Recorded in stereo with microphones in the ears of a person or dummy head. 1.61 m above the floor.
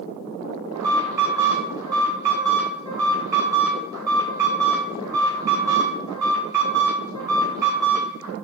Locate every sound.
0.7 s an alarm: 15° right (ahead or behind), 1.8 m